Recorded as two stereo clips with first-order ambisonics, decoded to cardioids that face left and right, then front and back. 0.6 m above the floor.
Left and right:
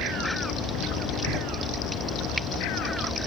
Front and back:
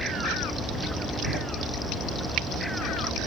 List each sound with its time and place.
1.2 s a door slam: 5° left, 7 m